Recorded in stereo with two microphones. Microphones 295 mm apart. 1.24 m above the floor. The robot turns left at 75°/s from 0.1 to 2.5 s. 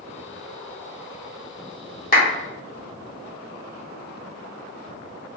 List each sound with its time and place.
2.1 s a clap: 30° left (ahead or behind), 1.1 m; by 2.2 s 20° left (ahead or behind), 1.1 m